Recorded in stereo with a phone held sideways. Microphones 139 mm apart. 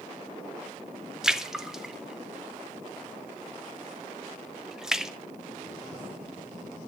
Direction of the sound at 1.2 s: 5° right (ahead or behind).